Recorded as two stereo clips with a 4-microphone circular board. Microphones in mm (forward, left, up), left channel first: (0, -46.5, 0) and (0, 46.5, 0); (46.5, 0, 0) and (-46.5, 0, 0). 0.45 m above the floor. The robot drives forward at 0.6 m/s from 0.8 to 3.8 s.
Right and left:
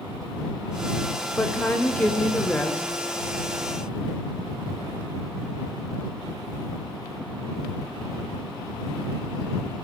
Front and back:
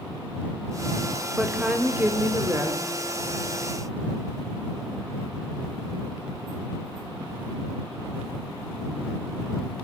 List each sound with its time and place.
1.4 s a woman speaking: 110° right, 1.4 m; by 2.8 s 160° right, 1.7 m